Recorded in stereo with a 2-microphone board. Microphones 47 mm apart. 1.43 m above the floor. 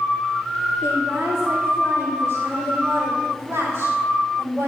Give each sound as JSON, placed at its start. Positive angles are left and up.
{"t": 0.8, "sound": "a woman speaking", "side_deg": -65, "distance_m": 3.5}